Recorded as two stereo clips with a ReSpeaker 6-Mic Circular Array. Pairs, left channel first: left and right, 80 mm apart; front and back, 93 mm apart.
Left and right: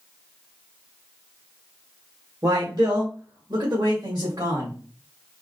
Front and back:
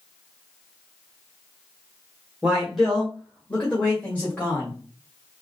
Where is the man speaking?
105° right, 1.1 m; by 4.8 s 70° right, 2 m.